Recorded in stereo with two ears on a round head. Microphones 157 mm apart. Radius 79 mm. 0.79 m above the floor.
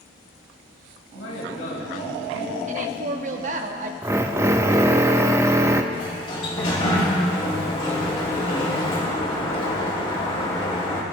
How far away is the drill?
About 0.6 m.